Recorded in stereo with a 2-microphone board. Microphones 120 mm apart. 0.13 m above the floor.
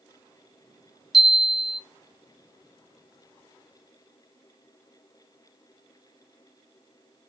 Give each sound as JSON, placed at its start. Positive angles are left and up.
{"t": 1.1, "sound": "a chime", "side_deg": -5, "distance_m": 0.8}